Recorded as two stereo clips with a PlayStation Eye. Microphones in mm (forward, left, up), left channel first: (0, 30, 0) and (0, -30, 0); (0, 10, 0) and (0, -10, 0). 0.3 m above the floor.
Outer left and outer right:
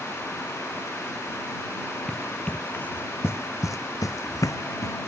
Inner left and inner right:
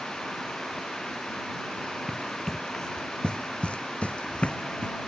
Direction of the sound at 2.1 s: 10° left (ahead or behind).